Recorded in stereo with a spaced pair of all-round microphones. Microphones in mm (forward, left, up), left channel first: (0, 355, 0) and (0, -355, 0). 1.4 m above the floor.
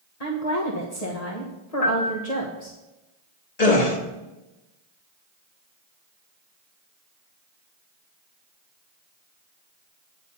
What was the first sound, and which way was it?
A woman speaking, 60° left (ahead or behind).